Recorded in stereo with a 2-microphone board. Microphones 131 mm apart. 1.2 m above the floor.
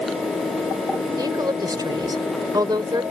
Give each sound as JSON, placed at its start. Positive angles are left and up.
{"t": 1.2, "sound": "a woman speaking", "side_deg": -30}